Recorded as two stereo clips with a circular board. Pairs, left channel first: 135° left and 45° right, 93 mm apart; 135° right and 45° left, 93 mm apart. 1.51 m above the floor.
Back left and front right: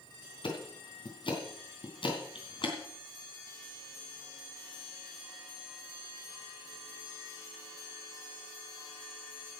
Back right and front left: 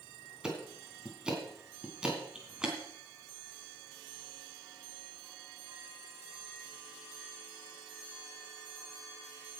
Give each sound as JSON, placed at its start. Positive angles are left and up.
{"t": 0.4, "sound": "ticking", "azimuth_deg": 125, "distance_m": 3.0}